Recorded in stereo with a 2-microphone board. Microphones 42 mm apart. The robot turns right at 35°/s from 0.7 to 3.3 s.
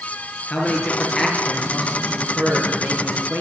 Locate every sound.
0.5 s a man speaking: 155° left, 6.5 m; by 3.4 s 115° right, 6.5 m